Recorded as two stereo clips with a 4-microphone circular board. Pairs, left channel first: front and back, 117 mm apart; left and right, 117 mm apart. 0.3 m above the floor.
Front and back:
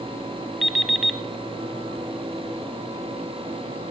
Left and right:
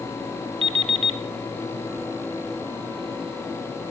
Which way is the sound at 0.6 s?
90° right.